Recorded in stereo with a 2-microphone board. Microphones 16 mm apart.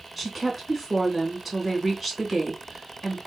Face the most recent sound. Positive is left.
turn(degrees=-5)  # may be behind; listen again after turning